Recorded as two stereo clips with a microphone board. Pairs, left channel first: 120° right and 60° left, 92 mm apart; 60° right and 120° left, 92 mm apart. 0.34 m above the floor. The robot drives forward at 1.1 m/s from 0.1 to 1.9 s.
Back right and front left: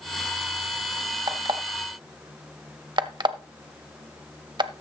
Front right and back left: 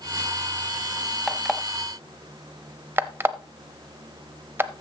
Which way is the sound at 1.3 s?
25° left.